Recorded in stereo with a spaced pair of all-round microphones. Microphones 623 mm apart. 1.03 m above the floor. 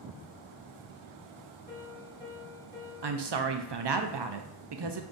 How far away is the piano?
About 2.0 m.